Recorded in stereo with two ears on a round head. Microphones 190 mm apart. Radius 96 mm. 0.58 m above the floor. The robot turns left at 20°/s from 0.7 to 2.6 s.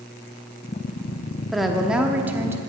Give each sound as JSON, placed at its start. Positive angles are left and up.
{"t": 1.5, "sound": "a woman speaking", "side_deg": 0, "distance_m": 1.0}